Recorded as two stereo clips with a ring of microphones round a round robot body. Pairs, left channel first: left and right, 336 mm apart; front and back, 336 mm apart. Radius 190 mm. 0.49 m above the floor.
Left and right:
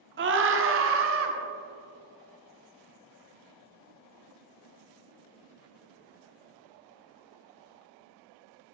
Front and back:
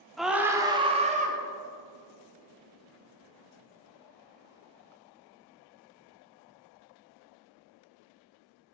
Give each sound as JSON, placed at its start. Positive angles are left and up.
{"t": 0.2, "sound": "a scream", "azimuth_deg": -90, "distance_m": 1.5}